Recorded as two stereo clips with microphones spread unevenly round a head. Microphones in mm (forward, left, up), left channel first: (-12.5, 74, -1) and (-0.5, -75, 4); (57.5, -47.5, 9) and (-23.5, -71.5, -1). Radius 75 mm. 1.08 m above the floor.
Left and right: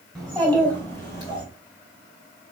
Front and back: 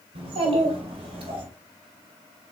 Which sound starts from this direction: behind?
A child speaking, at 0.1 s.